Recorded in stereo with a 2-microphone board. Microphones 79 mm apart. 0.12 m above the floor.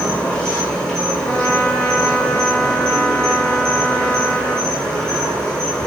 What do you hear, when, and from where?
0.0 s an insect: 10° left (ahead or behind), 1.2 m
1.2 s a trumpet: 30° left (ahead or behind), 1.2 m